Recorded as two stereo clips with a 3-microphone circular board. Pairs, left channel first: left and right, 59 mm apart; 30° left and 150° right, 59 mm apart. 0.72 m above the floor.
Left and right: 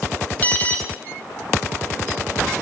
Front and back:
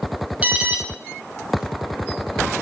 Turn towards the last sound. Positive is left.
turn(degrees=150)